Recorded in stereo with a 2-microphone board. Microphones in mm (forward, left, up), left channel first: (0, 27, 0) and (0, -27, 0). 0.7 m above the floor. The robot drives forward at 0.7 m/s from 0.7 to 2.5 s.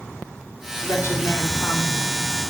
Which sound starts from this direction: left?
A woman speaking, at 0.8 s.